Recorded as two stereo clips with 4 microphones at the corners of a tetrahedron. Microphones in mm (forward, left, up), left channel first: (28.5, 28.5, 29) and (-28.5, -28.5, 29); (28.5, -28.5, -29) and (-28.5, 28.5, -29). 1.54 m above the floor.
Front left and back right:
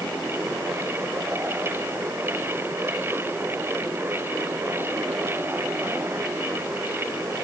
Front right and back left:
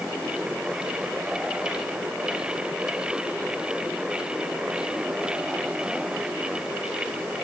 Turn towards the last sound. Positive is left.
No sound to turn to.